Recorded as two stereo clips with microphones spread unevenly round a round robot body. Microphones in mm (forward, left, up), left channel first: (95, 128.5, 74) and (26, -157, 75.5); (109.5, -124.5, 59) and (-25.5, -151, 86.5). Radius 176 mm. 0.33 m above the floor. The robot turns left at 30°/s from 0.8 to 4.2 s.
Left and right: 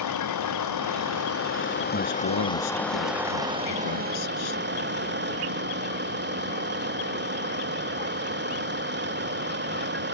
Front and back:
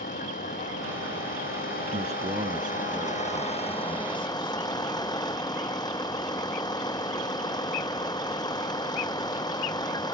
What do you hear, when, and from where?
0.0 s a vehicle: 50° left; by 10.1 s 50° right
1.9 s a man speaking: 140° left; by 4.6 s 70° left